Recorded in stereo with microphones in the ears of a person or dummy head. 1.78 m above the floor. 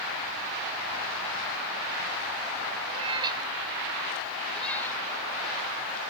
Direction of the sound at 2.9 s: 25° right (ahead or behind).